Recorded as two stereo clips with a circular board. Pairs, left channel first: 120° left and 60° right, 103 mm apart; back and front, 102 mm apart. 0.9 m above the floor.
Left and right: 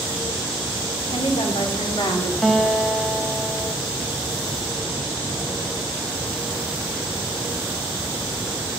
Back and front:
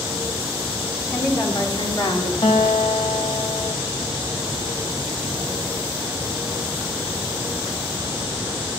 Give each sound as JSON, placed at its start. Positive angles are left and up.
{"t": 1.1, "sound": "a woman speaking", "azimuth_deg": 115, "distance_m": 2.5}
{"t": 2.4, "sound": "a guitar", "azimuth_deg": -155, "distance_m": 1.0}